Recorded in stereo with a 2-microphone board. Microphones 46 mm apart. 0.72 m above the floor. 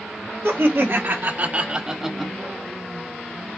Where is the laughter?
65° right (ahead or behind), 1.4 m; by 2.3 s 5° left (ahead or behind), 0.9 m.